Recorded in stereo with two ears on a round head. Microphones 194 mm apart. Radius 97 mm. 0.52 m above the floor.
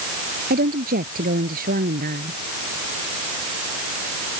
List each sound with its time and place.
0.5 s a woman speaking: 40° right (ahead or behind)